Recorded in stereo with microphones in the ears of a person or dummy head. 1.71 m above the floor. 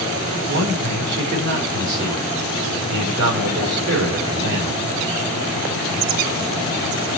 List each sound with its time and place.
0.5 s a man speaking: 60° right (ahead or behind), 4 m